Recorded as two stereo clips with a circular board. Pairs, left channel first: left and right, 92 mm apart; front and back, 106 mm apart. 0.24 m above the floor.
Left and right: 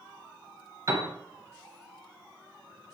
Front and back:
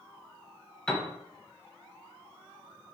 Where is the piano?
75° right, 0.5 m.